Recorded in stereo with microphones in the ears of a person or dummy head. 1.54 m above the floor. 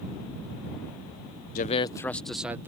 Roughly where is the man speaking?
Left.